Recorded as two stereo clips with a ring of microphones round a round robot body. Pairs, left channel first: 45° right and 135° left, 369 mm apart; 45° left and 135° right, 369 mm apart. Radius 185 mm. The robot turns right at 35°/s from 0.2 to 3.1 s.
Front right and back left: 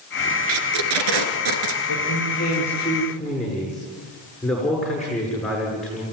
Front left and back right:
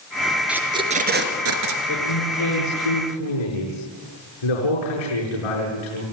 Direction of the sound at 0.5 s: 135° left.